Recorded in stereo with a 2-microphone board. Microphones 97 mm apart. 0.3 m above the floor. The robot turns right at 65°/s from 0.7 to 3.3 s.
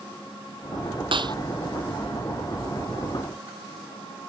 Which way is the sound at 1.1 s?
60° right (ahead or behind).